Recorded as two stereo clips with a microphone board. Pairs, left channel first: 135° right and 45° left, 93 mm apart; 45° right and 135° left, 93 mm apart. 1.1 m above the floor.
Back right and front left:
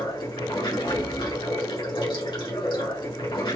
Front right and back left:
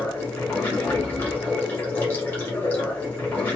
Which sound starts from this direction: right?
Running water, at 0.0 s.